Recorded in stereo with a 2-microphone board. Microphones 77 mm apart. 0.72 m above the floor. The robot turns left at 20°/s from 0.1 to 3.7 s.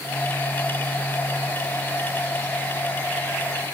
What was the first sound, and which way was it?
Only background noise.